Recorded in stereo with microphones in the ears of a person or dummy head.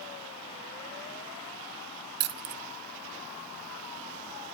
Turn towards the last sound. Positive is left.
turn(degrees=-55)  # may be behind; listen again after turning